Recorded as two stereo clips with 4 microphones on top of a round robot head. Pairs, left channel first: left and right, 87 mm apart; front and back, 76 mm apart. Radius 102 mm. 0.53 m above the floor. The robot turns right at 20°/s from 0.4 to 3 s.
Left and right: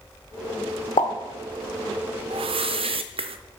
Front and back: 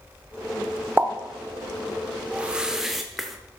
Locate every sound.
1.0 s a pop: 115° left, 0.8 m
2.3 s a whoosh: 105° right, 0.6 m; by 3.4 s 90° right, 0.6 m